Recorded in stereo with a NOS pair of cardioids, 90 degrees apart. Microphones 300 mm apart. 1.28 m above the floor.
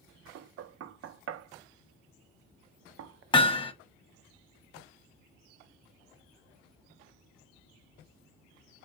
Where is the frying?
No frying in this recording.